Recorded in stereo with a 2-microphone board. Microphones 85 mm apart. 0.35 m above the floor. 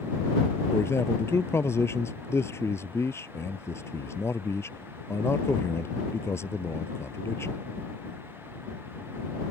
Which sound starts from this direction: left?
A man speaking, at 0.7 s.